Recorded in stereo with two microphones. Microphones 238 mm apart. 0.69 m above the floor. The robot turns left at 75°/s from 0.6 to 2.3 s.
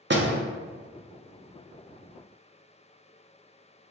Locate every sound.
0.1 s a door slam: 50° right (ahead or behind), 0.5 m